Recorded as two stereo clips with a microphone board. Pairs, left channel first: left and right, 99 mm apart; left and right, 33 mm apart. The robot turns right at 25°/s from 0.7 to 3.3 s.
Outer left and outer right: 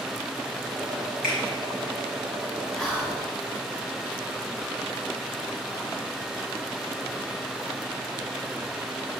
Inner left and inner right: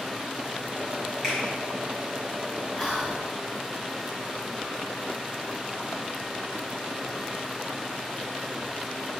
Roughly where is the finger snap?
Centre.